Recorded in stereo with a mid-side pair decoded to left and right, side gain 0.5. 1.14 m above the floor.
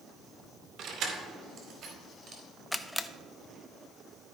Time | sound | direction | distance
0.8 | keys jangling | 60° right | 2 m
2.7 | a camera shutter | 5° left | 0.7 m